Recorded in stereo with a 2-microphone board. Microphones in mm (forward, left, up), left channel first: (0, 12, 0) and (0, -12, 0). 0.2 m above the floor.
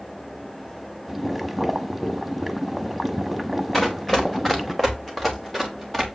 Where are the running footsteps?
15° left (ahead or behind), 1.5 m; by 6.0 s 5° left (ahead or behind), 2.5 m.